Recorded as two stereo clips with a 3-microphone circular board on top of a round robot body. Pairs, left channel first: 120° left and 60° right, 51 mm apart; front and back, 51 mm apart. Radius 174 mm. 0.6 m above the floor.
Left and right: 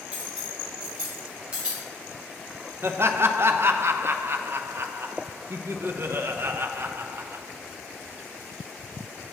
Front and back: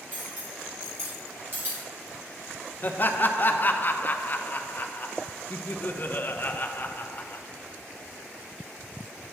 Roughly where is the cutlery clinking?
Behind right.